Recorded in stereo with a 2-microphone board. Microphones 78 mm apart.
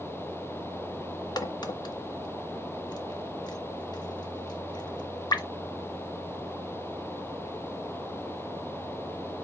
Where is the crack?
65° left (ahead or behind), 0.7 m.